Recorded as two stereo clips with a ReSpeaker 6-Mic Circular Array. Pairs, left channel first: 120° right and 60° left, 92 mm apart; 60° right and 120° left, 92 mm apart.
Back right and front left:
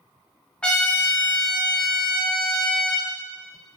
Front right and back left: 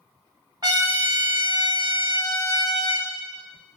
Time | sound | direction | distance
0.6 | a trumpet | 160° left | 0.7 m